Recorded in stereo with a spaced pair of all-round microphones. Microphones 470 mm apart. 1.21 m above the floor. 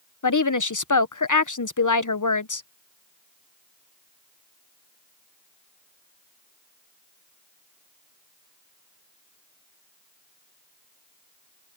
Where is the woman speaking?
40° left (ahead or behind).